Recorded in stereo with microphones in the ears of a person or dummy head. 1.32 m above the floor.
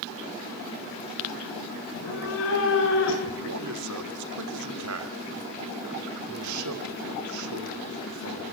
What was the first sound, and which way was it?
A cat meowing, 65° left (ahead or behind).